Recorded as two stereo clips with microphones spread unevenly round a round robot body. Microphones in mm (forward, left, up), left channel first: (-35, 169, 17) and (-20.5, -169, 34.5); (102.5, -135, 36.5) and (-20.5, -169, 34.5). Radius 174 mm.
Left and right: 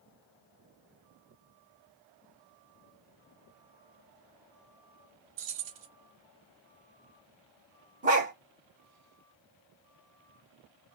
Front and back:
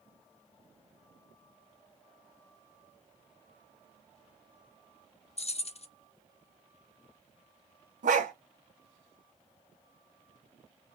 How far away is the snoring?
I don't hear snoring.